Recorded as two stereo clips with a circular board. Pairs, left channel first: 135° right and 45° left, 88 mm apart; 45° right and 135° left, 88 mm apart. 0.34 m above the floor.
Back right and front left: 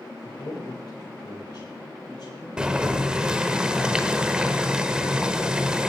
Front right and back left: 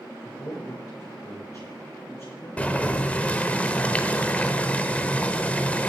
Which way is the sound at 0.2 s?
95° right.